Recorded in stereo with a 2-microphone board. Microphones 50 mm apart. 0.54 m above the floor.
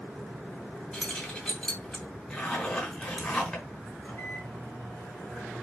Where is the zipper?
20° left (ahead or behind), 3.5 m.